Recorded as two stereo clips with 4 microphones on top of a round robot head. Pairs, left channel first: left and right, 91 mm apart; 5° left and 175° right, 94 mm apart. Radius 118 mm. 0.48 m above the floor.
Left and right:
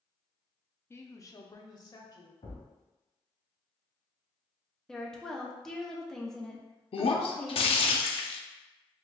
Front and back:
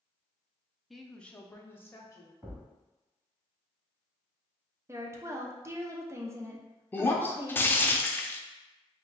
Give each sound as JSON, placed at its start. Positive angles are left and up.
{"t": 0.9, "sound": "a woman speaking", "azimuth_deg": 100, "distance_m": 0.7}
{"t": 2.4, "sound": "a thud", "azimuth_deg": 105, "distance_m": 1.5}
{"t": 4.9, "sound": "a woman speaking", "azimuth_deg": 170, "distance_m": 0.8}
{"t": 6.9, "sound": "breaking glass", "azimuth_deg": 75, "distance_m": 0.5}